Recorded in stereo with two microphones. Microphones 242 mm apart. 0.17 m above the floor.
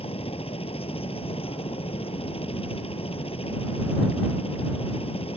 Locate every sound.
0.0 s a helicopter: 25° left (ahead or behind)